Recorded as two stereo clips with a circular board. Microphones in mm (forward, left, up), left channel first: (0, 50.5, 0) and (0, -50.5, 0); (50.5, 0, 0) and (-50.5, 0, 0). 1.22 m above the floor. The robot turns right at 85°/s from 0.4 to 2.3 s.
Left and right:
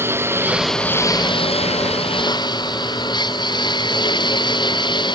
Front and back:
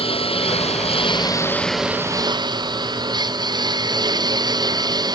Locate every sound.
0.0 s a lawn mower: 25° right; by 5.1 s 130° left